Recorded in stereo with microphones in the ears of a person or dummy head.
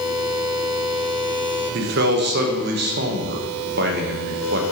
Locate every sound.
1.7 s a man speaking: 55° right (ahead or behind), 1.0 m